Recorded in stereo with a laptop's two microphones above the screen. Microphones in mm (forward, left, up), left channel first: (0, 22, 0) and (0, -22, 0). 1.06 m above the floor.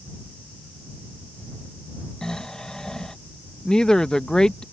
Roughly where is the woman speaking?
Centre.